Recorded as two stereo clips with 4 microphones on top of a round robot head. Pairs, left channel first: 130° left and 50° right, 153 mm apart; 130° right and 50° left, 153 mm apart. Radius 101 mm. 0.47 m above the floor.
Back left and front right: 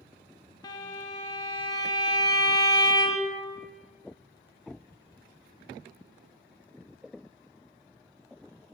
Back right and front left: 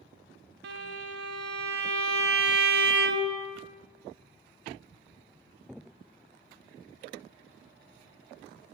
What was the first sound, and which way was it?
A violin, 65° left.